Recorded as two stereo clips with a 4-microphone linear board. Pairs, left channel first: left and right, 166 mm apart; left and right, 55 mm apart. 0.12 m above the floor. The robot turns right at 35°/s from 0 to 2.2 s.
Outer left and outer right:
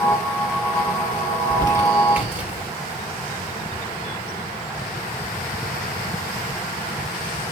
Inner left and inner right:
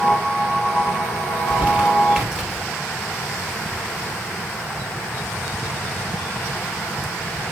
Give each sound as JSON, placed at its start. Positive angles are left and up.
{"t": 1.3, "sound": "crumpling", "side_deg": -35, "distance_m": 2.0}